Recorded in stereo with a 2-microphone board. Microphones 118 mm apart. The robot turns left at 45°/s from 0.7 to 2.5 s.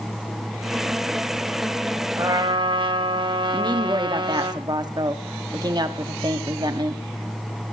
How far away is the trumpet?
About 1.8 m.